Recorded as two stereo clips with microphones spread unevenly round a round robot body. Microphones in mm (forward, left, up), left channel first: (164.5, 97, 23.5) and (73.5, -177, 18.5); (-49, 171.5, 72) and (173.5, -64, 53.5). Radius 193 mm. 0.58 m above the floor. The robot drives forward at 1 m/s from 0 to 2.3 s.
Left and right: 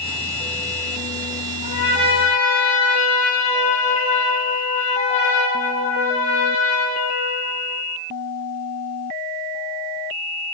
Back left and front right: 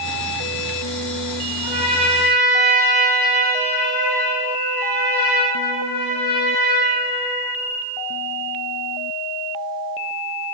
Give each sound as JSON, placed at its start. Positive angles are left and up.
{"t": 1.6, "sound": "a trumpet", "azimuth_deg": 75, "distance_m": 4.0}